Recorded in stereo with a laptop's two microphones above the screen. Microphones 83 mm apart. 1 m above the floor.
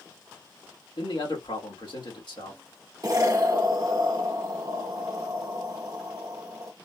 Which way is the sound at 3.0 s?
40° right (ahead or behind).